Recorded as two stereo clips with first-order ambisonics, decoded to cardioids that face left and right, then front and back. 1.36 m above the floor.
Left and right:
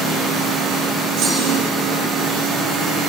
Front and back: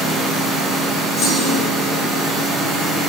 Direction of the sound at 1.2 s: 60° right.